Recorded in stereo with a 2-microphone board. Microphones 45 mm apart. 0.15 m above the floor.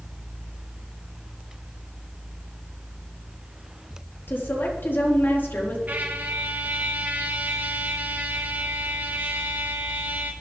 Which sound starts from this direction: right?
A trumpet, at 5.9 s.